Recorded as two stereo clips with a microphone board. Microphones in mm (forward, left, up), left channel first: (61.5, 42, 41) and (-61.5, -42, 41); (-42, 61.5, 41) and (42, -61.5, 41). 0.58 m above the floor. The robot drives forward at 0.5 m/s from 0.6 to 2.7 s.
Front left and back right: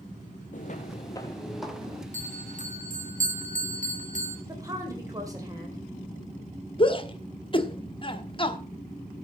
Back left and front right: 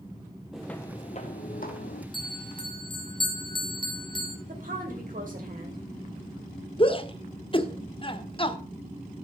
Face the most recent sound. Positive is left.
turn(degrees=80)